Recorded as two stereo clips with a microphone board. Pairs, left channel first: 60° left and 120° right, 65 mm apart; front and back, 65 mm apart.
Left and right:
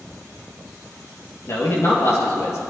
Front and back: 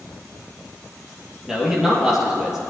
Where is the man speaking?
95° left, 3.5 m.